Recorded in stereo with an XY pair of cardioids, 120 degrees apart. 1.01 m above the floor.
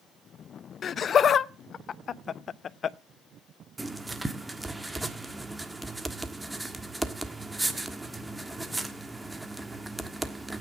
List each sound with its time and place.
0.8 s laughter: 45° left, 0.7 m
3.8 s writing: 10° right, 1.4 m